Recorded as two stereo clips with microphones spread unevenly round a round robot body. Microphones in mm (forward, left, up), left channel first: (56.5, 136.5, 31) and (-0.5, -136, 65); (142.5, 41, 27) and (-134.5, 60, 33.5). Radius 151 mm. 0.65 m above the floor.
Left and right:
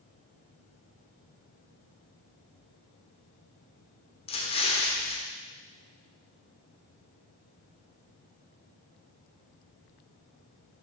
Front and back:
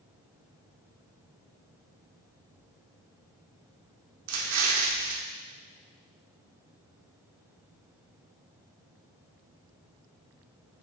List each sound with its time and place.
4.3 s an explosion: 145° left, 1.0 m